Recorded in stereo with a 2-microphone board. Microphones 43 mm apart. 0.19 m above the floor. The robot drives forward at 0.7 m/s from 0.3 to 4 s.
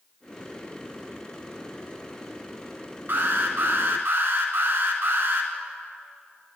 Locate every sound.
3.1 s an alarm: 55° right (ahead or behind), 1.6 m; by 5.5 s 60° right (ahead or behind), 1.6 m